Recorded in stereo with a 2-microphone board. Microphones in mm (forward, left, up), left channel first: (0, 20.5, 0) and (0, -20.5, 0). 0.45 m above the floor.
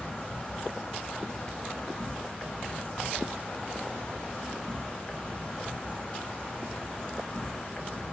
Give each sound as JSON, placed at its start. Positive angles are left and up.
{"t": 0.0, "sound": "an insect", "side_deg": 25, "distance_m": 0.7}